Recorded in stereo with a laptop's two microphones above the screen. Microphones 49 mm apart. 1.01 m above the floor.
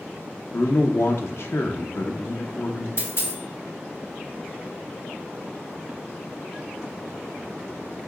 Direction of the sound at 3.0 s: 60° left (ahead or behind).